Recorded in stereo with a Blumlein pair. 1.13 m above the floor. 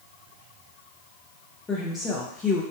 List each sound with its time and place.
1.7 s a woman speaking: 15° left, 0.8 m